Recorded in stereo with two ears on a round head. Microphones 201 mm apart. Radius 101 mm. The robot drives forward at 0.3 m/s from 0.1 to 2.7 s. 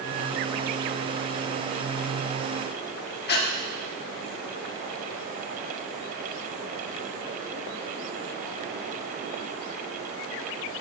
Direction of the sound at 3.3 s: 50° left (ahead or behind).